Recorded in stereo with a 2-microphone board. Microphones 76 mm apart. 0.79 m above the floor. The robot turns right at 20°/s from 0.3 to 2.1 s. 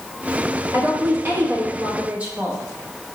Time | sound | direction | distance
0.7 | a woman speaking | 40° right (ahead or behind) | 0.8 m